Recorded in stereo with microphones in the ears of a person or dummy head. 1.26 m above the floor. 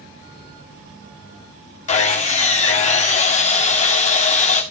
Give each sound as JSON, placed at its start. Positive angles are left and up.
{"t": 1.9, "sound": "sawing", "side_deg": 35, "distance_m": 2.0}